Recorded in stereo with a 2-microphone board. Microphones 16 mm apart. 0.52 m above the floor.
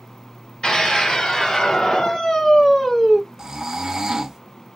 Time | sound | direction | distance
0.6 | a scream | 70° left (ahead or behind) | 1.9 m
3.4 | snoring | 40° right (ahead or behind) | 0.9 m